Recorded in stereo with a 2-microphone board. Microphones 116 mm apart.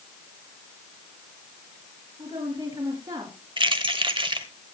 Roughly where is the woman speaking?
Right.